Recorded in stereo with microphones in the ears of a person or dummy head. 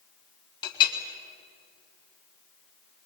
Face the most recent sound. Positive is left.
turn(degrees=25)  # may be behind; listen again after turning